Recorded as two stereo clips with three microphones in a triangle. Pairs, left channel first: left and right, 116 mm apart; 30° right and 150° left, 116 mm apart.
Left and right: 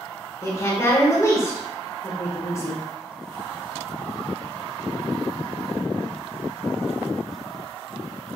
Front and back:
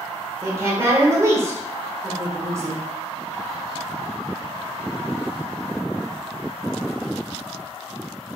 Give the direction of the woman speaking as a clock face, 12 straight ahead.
8 o'clock.